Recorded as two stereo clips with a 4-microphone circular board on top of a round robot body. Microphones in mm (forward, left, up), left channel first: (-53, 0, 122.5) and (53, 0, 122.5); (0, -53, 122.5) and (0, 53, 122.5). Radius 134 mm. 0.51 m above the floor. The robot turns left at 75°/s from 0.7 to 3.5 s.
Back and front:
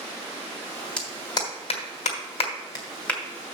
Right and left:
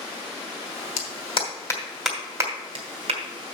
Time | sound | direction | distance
1.0 | a clap | 100° right | 2.5 m